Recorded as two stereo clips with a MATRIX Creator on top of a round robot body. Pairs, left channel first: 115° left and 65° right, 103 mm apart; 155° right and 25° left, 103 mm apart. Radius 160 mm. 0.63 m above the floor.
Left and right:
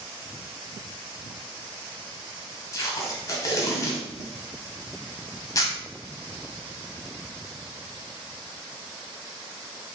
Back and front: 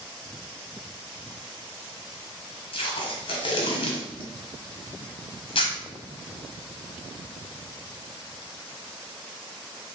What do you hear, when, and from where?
2.7 s tape being pulled: 170° left, 0.7 m